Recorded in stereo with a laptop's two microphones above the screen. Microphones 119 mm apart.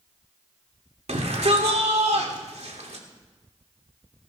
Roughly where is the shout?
Right.